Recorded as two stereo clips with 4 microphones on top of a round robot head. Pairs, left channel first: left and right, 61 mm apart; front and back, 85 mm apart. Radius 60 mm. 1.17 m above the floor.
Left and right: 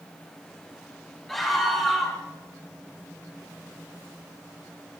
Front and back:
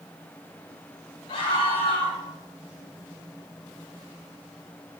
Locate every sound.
1.3 s a scream: 5° left, 4.5 m